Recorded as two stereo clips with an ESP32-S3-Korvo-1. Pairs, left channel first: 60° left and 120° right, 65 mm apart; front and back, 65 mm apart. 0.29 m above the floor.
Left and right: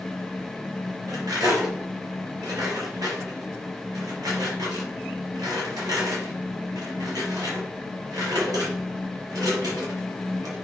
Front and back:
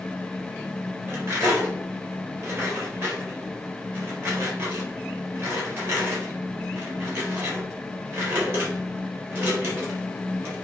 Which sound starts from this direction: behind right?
Cutlery clinking, at 1.1 s.